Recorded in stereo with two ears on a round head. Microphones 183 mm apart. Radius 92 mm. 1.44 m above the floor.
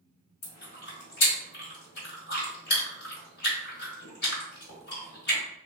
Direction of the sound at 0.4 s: 50° left (ahead or behind).